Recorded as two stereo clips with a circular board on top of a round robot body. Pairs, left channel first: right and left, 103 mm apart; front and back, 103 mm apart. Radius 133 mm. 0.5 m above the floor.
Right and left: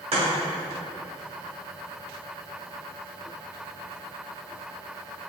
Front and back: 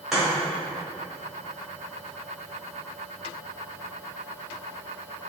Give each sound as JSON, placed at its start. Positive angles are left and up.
{"t": 0.1, "sound": "chopping", "azimuth_deg": 90, "distance_m": 1.9}